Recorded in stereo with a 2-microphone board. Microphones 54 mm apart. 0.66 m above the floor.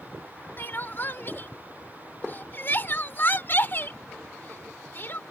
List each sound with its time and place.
0.6 s crying: 40° left (ahead or behind)